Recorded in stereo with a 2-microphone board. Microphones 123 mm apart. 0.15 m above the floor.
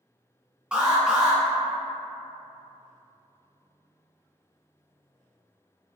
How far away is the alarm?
About 1.0 m.